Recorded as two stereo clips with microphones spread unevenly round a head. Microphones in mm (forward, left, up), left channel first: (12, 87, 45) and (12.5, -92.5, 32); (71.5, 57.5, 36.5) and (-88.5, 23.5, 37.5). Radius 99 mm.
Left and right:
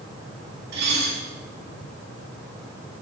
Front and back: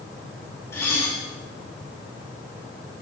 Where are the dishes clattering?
65° right, 9 m.